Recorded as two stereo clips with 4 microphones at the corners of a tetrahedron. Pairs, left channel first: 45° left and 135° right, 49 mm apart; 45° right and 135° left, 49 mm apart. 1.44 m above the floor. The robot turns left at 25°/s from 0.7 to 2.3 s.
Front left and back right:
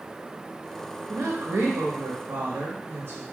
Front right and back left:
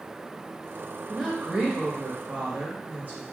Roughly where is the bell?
No bell in this recording.